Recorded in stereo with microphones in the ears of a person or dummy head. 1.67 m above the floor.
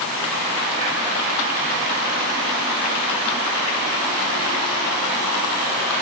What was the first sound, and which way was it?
Only background noise.